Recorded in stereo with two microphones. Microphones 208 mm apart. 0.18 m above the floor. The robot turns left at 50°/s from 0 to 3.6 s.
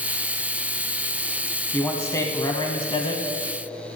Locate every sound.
1.7 s a man speaking: 5° left (ahead or behind), 1.0 m; by 3.2 s 25° left (ahead or behind), 1.0 m